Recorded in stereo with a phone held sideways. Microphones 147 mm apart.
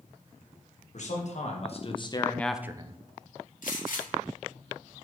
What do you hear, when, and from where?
0.9 s a man speaking: 60° left (ahead or behind), 1.6 m; by 3.0 s 45° right (ahead or behind), 0.6 m
3.6 s a gunshot: 70° left (ahead or behind), 2 m